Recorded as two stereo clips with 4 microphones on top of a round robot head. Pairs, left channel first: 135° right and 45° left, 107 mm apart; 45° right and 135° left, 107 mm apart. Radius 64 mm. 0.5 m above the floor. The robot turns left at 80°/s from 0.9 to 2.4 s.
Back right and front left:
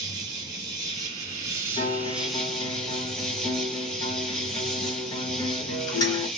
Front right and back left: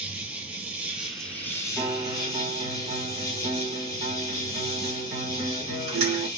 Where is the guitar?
140° right, 1.0 m; by 6.3 s 165° left, 1.0 m.